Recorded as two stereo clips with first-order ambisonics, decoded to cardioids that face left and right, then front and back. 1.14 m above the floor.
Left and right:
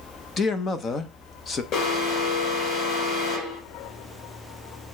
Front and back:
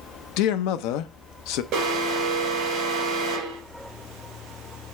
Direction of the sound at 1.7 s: 130° left.